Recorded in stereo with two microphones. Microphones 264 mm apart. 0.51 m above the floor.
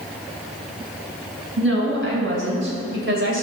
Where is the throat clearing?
I don't hear throat clearing.